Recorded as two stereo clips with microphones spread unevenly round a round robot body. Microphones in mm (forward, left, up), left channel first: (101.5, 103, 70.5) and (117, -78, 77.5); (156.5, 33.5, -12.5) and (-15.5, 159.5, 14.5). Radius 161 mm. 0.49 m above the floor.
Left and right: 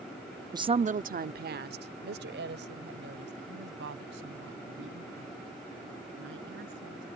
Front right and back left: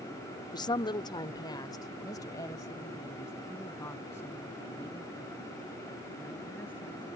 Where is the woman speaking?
35° right; by 7.1 s 120° right.